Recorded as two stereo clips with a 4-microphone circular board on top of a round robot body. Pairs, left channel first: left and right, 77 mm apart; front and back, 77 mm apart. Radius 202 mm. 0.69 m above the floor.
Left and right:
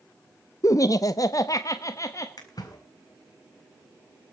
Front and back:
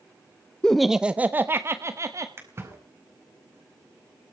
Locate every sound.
0.6 s laughter: 75° left, 0.8 m; by 2.3 s 135° left, 1.6 m
2.4 s a splash: 125° left, 5 m